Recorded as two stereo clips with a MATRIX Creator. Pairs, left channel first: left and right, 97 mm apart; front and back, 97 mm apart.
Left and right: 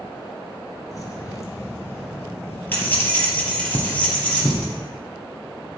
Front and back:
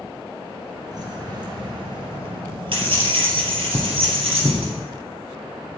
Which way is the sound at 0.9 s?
140° left.